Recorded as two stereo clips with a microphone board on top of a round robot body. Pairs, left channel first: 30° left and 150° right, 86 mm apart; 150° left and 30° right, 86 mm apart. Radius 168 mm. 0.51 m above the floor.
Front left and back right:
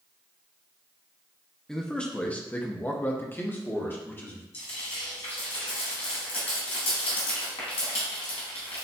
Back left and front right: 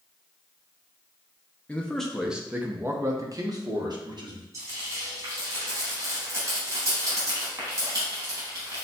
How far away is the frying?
About 0.8 m.